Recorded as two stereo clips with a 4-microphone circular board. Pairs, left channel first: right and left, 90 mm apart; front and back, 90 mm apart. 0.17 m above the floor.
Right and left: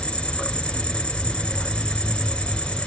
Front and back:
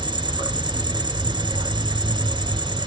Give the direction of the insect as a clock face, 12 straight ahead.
6 o'clock.